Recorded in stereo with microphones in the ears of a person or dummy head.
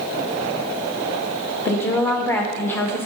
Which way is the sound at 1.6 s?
5° left (ahead or behind).